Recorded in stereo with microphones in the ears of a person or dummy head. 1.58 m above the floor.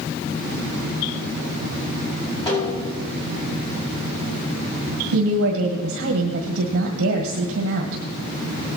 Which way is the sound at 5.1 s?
75° right (ahead or behind).